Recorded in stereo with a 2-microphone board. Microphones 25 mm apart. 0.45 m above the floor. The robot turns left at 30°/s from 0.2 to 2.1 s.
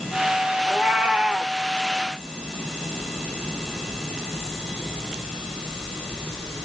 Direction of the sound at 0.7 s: 60° right (ahead or behind).